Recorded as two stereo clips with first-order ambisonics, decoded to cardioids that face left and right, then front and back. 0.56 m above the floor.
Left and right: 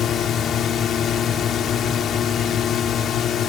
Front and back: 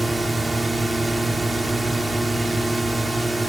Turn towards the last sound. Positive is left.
turn(degrees=100)